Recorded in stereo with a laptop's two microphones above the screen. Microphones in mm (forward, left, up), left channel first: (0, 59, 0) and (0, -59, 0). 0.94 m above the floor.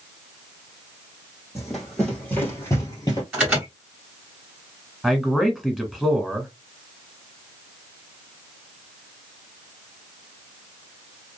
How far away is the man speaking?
About 1.3 m.